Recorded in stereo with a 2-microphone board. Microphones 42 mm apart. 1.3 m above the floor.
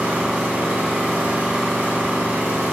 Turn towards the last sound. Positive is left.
turn(degrees=-55)  # may be behind; listen again after turning